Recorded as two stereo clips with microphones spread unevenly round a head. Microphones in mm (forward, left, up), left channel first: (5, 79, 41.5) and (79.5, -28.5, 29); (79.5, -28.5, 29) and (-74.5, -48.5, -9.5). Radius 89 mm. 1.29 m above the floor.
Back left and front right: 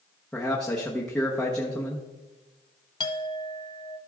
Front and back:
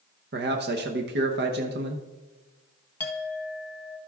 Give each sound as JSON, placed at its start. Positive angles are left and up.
{"t": 0.3, "sound": "a man speaking", "azimuth_deg": -150, "distance_m": 0.9}
{"t": 3.0, "sound": "a clink", "azimuth_deg": 75, "distance_m": 0.7}